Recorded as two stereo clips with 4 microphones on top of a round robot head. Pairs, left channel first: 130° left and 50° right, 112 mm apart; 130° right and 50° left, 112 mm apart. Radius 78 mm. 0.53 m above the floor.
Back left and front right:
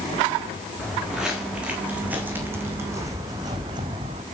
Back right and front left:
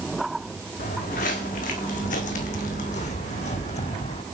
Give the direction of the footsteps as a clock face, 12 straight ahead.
5 o'clock.